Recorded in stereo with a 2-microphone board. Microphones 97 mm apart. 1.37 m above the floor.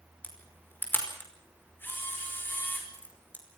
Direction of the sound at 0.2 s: 20° left (ahead or behind).